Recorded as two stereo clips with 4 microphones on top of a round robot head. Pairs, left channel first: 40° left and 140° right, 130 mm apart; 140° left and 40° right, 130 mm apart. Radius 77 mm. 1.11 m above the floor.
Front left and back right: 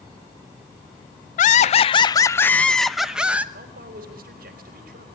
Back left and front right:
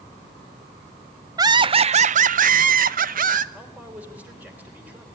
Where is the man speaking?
120° right, 4 m.